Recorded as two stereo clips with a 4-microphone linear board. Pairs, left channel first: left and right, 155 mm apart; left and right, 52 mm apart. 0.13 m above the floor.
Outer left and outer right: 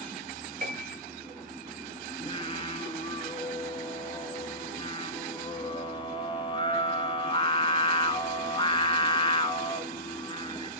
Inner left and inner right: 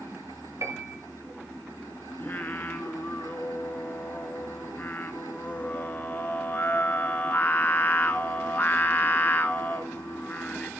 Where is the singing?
35° left (ahead or behind), 0.7 m.